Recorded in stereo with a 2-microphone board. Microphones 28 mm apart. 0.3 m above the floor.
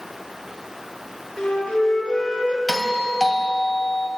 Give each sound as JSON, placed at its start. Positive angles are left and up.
{"t": 1.4, "sound": "a flute", "side_deg": 35, "distance_m": 5.0}
{"t": 2.7, "sound": "a doorbell", "side_deg": 15, "distance_m": 2.5}